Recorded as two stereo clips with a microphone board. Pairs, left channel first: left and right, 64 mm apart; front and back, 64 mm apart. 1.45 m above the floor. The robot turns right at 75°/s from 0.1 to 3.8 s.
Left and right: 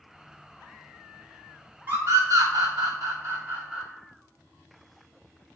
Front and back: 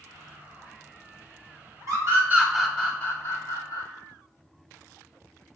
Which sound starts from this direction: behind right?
A scream, at 1.9 s.